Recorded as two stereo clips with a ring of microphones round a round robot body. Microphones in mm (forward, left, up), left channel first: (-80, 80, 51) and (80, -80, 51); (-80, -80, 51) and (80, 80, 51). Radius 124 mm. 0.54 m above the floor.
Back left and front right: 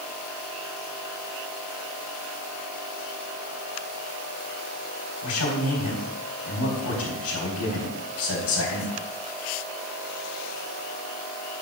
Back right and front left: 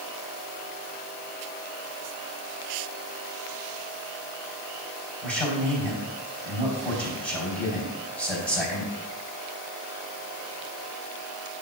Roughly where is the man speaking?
Behind left.